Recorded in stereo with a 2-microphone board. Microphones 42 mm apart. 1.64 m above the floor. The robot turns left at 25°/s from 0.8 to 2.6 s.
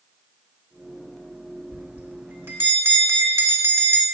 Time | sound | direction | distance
1.7 | a bell | 40° right (ahead or behind) | 2.5 m